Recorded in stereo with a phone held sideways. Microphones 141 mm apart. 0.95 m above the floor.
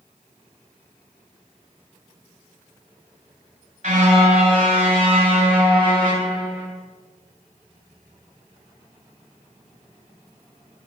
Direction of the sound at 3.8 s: 50° right (ahead or behind).